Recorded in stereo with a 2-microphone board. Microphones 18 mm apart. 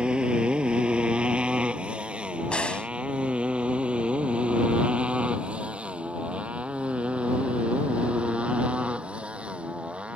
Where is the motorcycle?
60° right (ahead or behind); by 10.2 s 90° right.